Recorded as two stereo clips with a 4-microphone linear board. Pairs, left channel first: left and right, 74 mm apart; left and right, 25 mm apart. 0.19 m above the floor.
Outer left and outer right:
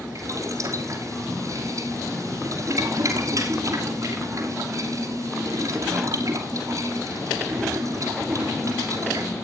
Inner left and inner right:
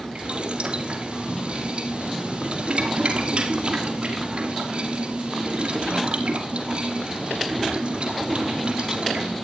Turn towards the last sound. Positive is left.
turn(degrees=-50)  # may be behind; listen again after turning